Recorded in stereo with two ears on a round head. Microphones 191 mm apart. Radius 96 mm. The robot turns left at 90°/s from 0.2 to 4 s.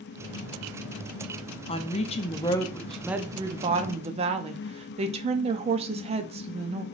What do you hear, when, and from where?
1.7 s a woman speaking: 25° left (ahead or behind), 0.5 m; by 6.8 s 30° right (ahead or behind), 0.5 m